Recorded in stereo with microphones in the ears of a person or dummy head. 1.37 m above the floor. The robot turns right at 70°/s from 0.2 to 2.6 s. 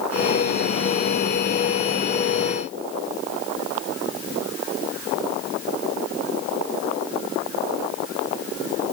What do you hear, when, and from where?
Only background noise.